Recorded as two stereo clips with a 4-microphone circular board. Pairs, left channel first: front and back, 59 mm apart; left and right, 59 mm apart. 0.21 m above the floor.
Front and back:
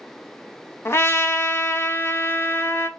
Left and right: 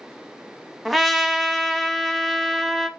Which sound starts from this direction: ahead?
A trumpet, at 0.8 s.